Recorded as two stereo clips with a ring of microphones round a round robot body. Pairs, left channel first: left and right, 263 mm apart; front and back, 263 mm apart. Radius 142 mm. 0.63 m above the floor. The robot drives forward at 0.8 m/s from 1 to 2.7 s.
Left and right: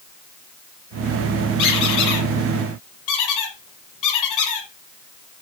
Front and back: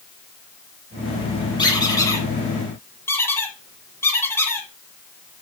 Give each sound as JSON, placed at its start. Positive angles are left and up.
{"t": 1.6, "sound": "a squeak", "azimuth_deg": 75, "distance_m": 7.0}